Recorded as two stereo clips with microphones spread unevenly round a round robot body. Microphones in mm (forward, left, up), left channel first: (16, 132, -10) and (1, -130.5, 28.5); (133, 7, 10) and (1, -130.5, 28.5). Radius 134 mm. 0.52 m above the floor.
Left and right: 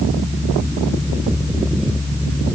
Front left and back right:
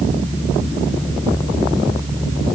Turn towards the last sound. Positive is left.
No sound to turn to.